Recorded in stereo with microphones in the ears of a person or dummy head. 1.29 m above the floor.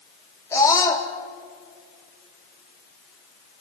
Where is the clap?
No clap in this recording.